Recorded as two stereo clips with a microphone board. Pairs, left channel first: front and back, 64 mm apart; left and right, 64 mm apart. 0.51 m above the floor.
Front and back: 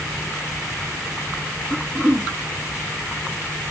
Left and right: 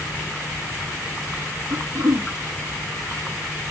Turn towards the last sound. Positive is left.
turn(degrees=-115)